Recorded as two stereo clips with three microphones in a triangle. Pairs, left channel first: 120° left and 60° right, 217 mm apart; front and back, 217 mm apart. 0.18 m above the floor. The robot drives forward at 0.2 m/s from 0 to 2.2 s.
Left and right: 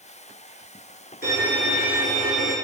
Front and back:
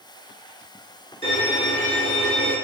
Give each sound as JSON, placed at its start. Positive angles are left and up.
{"t": 1.2, "sound": "a violin", "azimuth_deg": -45, "distance_m": 1.7}